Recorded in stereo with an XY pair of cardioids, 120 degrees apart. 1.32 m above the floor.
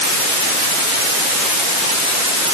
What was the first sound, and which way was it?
Only background noise.